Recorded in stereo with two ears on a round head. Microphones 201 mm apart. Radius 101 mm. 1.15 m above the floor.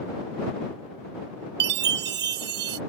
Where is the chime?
45° right (ahead or behind).